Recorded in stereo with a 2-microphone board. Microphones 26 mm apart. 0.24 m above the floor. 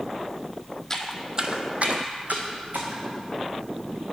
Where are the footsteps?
15° left (ahead or behind), 0.6 m; by 3.0 s 80° right, 1.7 m.